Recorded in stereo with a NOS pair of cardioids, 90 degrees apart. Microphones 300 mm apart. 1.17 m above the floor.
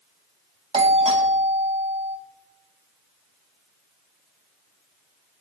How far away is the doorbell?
About 1.6 m.